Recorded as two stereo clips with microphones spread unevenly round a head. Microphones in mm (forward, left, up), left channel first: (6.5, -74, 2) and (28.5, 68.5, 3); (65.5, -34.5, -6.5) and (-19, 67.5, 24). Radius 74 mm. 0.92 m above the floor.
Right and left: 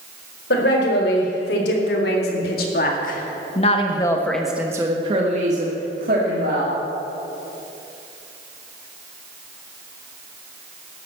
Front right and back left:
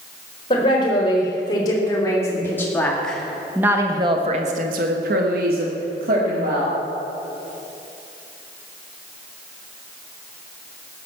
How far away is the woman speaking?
About 4.5 m.